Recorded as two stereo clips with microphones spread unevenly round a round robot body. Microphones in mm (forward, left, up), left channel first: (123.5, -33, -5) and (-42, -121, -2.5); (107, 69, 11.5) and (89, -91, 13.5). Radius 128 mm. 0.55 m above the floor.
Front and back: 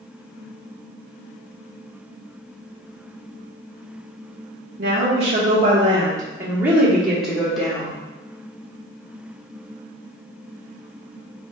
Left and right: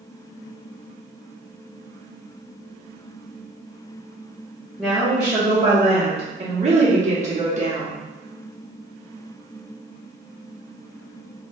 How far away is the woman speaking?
About 0.9 m.